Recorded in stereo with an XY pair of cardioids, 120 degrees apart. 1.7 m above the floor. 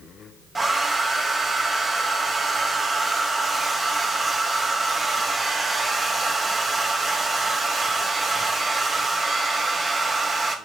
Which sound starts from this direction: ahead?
A hair dryer, at 0.6 s.